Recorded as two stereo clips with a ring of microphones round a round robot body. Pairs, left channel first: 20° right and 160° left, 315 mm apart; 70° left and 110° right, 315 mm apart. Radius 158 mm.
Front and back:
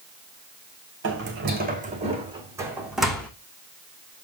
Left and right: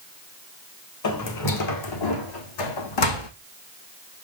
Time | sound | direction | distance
1.0 | footsteps | 105° left | 3 m